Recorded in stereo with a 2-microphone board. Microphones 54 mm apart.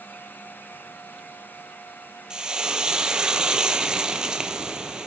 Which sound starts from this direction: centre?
Frying, at 2.3 s.